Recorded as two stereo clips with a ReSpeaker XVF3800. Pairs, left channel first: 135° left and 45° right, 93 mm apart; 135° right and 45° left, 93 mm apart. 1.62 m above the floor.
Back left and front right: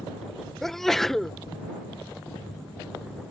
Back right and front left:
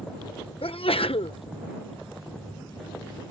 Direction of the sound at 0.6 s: 140° right.